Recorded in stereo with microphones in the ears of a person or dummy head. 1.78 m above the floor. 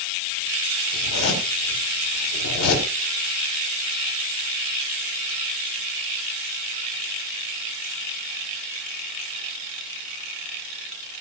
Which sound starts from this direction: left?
A zipper, at 0.9 s.